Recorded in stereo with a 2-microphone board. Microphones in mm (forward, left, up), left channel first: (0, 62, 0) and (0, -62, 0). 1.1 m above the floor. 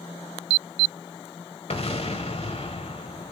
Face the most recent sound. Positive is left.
turn(degrees=55)  # may be behind; listen again after turning